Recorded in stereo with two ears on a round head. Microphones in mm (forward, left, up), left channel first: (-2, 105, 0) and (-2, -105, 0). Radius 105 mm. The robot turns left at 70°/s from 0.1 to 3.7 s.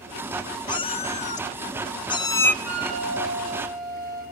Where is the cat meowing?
145° left, 0.7 m; by 2.5 s 15° left, 0.7 m.